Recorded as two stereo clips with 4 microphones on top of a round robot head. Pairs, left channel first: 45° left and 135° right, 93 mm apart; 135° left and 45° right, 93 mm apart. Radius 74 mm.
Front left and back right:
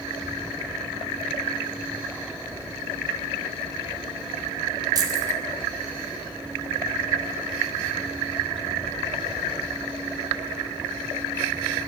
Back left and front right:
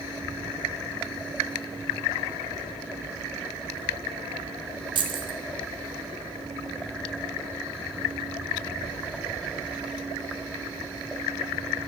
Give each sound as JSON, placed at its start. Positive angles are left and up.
{"t": 5.0, "sound": "keys jangling", "azimuth_deg": -85, "distance_m": 2.5}